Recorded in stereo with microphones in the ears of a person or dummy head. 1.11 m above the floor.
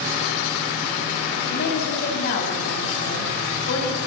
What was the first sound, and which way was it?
A woman speaking, 55° left (ahead or behind).